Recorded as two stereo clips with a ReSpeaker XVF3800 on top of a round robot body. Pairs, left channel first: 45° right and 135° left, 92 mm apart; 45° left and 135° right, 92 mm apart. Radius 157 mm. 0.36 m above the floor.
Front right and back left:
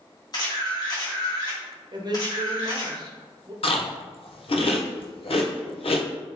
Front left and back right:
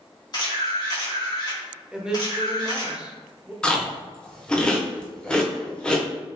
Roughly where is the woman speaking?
Behind left.